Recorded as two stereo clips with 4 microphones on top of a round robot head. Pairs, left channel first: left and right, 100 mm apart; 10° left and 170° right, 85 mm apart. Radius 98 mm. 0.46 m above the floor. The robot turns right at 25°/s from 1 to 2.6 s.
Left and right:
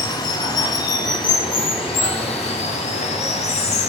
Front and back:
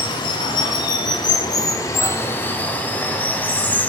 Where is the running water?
40° left, 0.7 m; by 3.9 s 80° left, 0.7 m.